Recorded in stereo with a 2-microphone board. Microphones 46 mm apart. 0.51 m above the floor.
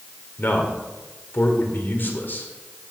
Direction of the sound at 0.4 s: 50° left (ahead or behind).